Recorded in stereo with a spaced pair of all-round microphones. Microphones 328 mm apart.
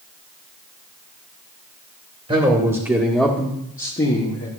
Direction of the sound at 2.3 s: 20° right (ahead or behind).